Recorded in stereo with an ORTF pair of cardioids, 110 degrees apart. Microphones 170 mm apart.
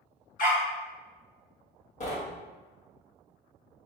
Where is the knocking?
40° left, 1.2 m.